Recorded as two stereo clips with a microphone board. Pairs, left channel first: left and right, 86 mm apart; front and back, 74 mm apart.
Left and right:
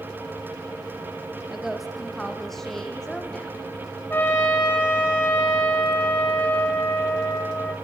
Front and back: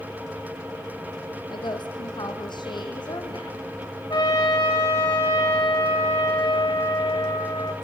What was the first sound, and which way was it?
A woman speaking, 5° right.